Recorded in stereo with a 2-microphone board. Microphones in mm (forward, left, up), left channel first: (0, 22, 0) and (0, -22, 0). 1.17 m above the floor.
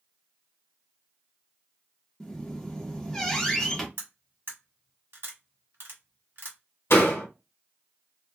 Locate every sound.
2.2 s a squeak: 10° left (ahead or behind), 0.7 m
4.0 s cutlery clinking: 65° right (ahead or behind), 1.0 m
6.9 s a door slam: 75° left (ahead or behind), 1.0 m